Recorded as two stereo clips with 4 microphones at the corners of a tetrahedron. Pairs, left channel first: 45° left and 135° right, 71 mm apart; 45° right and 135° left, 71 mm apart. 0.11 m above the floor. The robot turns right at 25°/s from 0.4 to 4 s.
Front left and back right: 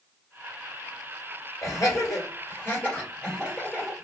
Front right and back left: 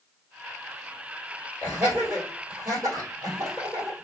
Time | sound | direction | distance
1.6 | laughter | 70° left | 2.0 m